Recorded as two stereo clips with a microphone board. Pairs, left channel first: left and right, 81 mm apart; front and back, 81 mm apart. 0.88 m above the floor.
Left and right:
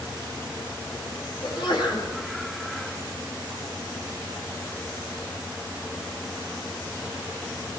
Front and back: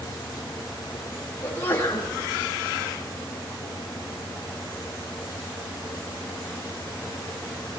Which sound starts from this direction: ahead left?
A sneeze, at 1.4 s.